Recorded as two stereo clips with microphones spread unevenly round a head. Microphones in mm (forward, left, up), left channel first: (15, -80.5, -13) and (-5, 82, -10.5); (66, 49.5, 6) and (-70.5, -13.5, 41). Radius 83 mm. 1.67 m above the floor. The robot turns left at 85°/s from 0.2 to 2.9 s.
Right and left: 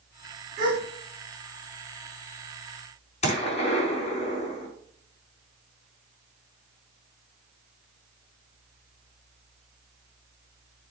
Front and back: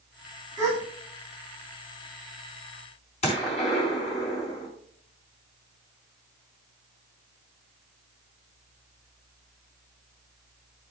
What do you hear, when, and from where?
0.6 s a gasp: 165° left, 4.5 m; by 0.8 s 145° left, 4.5 m
3.2 s a gunshot: 35° right, 4 m